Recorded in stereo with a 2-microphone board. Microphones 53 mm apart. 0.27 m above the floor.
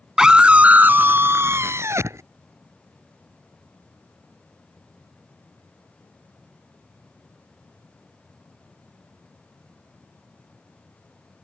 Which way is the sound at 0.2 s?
10° right (ahead or behind).